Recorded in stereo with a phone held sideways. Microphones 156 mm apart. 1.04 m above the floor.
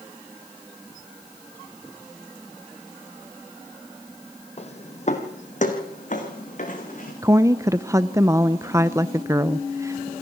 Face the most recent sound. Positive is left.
turn(degrees=-20)  # may be behind; listen again after turning